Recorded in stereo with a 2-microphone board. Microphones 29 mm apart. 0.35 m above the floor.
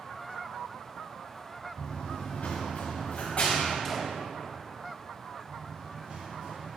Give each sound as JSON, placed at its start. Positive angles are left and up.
{"t": 1.8, "sound": "running footsteps", "side_deg": 65, "distance_m": 2.0}
{"t": 3.9, "sound": "a gunshot", "side_deg": 0, "distance_m": 0.8}
{"t": 5.5, "sound": "running footsteps", "side_deg": -50, "distance_m": 2.5}